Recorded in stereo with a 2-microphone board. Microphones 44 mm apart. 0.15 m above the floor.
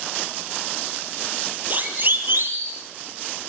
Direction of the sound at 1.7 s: 40° right (ahead or behind).